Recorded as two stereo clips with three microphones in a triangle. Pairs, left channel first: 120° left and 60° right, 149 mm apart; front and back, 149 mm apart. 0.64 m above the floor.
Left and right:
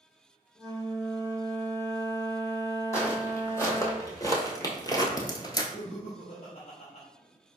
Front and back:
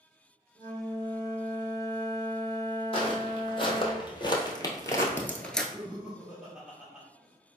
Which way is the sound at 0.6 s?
60° left.